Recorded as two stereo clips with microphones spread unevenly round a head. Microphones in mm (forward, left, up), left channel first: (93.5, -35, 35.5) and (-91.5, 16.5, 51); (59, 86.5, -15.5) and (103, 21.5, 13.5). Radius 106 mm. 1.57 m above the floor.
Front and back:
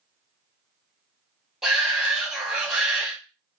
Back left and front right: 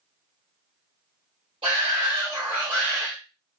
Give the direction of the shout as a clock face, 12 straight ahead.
4 o'clock.